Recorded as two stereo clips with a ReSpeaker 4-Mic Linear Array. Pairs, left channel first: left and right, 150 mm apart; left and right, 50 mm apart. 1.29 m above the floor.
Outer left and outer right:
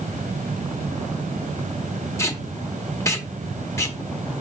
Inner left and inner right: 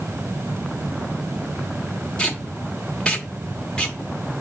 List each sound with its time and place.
2.2 s tape being pulled: 20° left (ahead or behind), 0.9 m